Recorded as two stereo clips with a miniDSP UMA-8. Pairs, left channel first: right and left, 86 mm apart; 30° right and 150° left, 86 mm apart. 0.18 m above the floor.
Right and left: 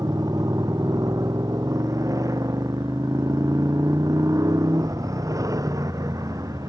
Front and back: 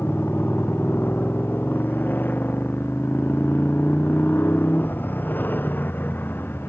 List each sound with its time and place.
0.0 s a motorcycle: 40° left